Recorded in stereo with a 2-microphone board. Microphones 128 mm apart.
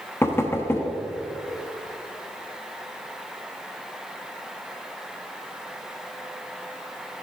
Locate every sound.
0.2 s knocking: 20° left (ahead or behind), 0.8 m